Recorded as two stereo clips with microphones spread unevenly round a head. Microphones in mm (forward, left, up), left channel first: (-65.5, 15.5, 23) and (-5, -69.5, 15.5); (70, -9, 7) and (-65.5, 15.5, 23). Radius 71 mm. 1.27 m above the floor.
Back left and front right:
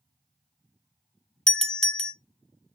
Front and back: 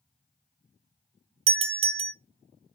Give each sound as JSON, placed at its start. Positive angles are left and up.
{"t": 1.5, "sound": "a doorbell", "azimuth_deg": -150, "distance_m": 0.6}